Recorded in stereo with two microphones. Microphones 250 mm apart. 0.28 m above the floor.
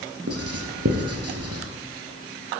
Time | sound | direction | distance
0.3 | writing | 70° right (ahead or behind) | 2 m